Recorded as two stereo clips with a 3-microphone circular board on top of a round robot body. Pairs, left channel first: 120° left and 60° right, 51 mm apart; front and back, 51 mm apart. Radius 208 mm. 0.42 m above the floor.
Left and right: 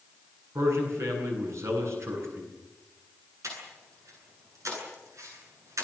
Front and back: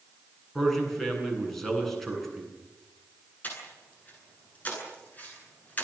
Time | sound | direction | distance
0.6 | a man speaking | 85° right | 9 m
3.4 | breathing | 60° right | 9.5 m